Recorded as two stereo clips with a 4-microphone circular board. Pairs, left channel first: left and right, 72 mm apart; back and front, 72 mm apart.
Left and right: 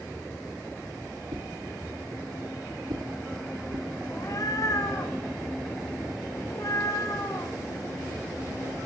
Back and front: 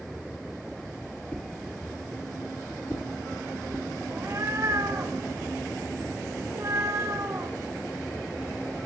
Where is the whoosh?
115° right, 4.5 m.